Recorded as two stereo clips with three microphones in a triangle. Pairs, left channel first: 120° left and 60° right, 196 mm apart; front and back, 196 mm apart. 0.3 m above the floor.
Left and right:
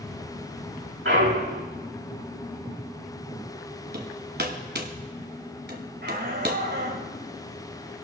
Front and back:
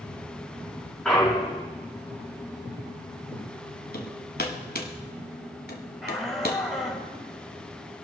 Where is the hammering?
35° right, 1.5 m.